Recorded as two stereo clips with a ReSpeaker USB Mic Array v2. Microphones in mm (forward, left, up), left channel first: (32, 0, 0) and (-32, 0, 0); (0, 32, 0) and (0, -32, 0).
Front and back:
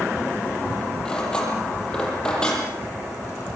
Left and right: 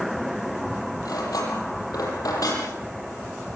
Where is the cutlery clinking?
75° left, 9 m.